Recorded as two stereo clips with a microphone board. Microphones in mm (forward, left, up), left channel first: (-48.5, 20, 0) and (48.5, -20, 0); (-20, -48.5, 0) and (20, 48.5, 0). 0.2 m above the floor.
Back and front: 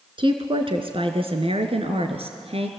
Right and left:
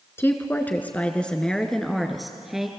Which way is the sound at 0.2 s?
50° right.